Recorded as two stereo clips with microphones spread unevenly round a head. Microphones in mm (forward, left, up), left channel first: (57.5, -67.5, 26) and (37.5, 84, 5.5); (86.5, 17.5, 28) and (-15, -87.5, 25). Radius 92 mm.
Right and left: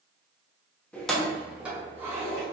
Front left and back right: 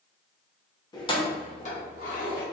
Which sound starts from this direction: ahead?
Keys jangling, at 0.9 s.